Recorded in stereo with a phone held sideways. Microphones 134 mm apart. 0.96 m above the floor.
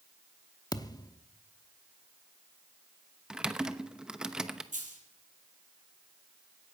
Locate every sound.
0.7 s a thud: 30° left (ahead or behind), 0.7 m
3.3 s typing on a keyboard: 5° right (ahead or behind), 0.9 m
4.7 s a dropped coin: 75° right (ahead or behind), 4.5 m